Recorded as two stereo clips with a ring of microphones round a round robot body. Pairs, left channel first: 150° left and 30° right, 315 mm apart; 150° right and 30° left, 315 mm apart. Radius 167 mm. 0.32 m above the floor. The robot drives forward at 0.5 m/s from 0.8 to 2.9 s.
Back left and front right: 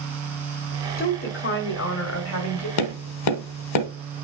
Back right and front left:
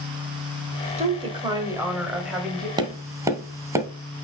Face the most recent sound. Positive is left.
turn(degrees=110)